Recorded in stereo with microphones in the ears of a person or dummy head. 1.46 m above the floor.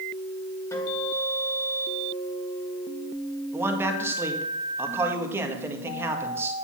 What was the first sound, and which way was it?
A guitar, 10° left (ahead or behind).